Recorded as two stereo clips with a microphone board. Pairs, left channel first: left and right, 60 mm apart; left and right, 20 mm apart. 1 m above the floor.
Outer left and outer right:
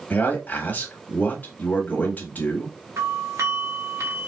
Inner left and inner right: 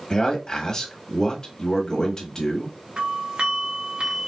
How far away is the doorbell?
About 1.8 m.